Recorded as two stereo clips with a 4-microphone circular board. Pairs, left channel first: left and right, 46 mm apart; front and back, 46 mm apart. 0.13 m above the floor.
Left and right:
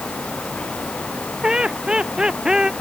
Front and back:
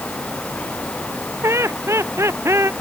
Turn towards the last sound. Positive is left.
turn(degrees=-165)